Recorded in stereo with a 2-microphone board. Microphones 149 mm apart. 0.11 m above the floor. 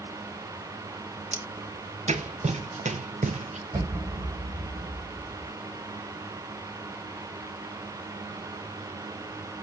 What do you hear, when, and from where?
1.3 s footsteps: 50° right (ahead or behind), 2.5 m; by 3.6 s 55° right (ahead or behind), 1.5 m
3.7 s an explosion: 20° right (ahead or behind), 4 m